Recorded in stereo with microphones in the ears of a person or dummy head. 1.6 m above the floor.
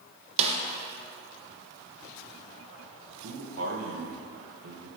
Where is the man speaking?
85° right, 1.8 m.